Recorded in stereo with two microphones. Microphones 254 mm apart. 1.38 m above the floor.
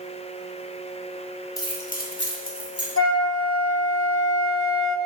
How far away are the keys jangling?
About 1.0 m.